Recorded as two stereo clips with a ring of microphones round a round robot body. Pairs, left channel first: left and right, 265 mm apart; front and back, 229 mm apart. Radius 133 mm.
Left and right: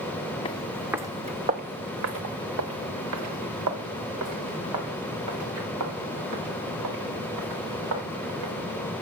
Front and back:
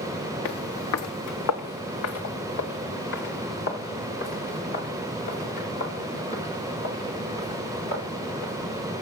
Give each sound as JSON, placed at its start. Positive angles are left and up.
{"t": 0.5, "sound": "footsteps", "azimuth_deg": 20, "distance_m": 0.9}